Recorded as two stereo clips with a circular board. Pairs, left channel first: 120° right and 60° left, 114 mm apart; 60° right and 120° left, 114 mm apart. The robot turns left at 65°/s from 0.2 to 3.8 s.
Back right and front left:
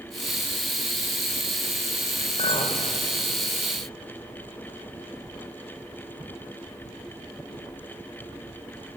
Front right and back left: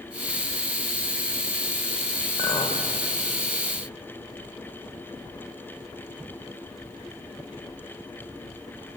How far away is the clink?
About 2.5 m.